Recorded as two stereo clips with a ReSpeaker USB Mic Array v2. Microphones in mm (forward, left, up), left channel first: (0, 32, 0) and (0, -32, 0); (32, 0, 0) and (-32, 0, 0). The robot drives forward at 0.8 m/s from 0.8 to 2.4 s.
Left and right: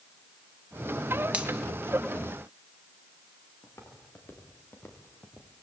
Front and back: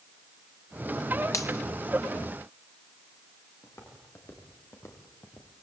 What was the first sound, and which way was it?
A finger snap, 20° right.